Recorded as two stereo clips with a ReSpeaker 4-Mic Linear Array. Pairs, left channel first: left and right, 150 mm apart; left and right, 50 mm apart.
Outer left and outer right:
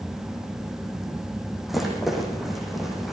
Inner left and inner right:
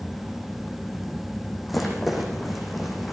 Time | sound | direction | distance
1.7 | a rattle | centre (ahead or behind) | 8 m